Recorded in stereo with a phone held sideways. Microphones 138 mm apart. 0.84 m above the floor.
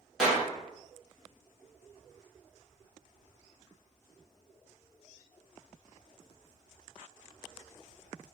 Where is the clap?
5° right (ahead or behind), 1.1 m.